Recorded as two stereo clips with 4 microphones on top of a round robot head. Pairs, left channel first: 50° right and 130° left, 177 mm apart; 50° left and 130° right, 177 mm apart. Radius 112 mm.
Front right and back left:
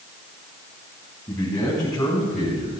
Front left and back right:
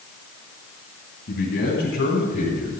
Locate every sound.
1.3 s a man speaking: 20° left, 5.5 m; by 2.8 s 10° left, 4 m